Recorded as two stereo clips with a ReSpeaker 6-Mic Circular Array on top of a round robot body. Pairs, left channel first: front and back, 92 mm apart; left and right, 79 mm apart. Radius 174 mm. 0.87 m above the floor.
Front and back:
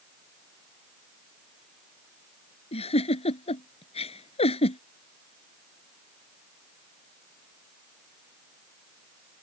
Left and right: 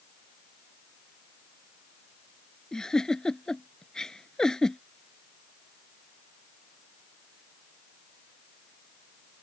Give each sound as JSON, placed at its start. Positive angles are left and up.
{"t": 2.7, "sound": "a giggle", "azimuth_deg": 5}